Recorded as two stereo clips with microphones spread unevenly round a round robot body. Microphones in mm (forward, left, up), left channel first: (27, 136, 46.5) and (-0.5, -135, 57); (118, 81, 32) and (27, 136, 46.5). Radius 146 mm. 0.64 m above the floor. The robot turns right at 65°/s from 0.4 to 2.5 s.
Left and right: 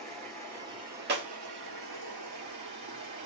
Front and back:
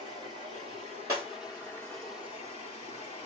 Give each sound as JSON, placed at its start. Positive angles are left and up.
{"t": 0.0, "sound": "running water", "azimuth_deg": 170, "distance_m": 2.5}
{"t": 1.1, "sound": "breaking glass", "azimuth_deg": -145, "distance_m": 1.0}